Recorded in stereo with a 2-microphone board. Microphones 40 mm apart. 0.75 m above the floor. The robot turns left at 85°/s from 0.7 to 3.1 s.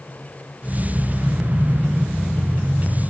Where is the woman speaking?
No woman speaking in this recording.